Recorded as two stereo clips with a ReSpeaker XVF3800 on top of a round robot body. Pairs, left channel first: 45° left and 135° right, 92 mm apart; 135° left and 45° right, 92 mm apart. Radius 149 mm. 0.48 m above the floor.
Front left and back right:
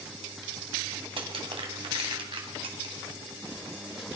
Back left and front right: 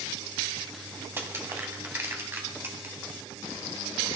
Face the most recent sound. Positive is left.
turn(degrees=-110)